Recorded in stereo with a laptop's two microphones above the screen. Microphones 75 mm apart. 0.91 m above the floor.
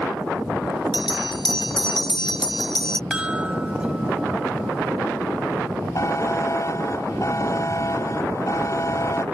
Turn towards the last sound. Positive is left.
turn(degrees=45)  # may be behind; listen again after turning